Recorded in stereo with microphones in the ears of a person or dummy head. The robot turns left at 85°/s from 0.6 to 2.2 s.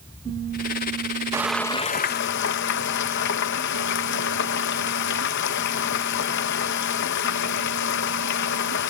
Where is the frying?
165° right; by 8.9 s 120° left.